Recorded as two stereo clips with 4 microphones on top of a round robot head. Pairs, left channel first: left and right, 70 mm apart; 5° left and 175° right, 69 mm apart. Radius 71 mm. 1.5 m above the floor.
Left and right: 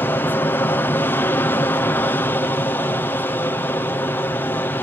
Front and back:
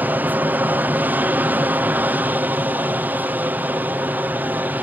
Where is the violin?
No violin in this recording.